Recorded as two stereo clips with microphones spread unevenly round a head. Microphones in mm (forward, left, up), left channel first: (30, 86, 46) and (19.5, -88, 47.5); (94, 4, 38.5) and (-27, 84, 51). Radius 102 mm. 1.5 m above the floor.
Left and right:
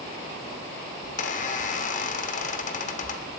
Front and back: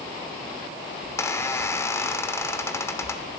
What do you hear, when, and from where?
1.0 s a squeak: 40° left, 3 m